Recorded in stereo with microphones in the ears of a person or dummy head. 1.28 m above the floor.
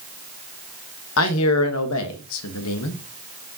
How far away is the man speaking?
About 1.2 m.